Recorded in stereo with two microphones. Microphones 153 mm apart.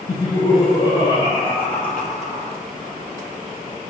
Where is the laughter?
40° left (ahead or behind), 6.5 m; by 2.6 s 45° left (ahead or behind), 2.5 m.